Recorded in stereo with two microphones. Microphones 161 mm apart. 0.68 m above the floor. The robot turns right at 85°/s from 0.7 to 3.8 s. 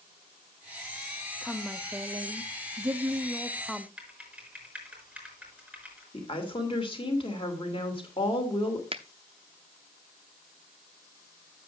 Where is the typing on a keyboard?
5° right (ahead or behind), 5 m.